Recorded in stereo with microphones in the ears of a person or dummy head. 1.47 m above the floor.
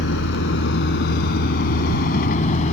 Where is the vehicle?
75° left (ahead or behind); by 2.7 s 45° left (ahead or behind).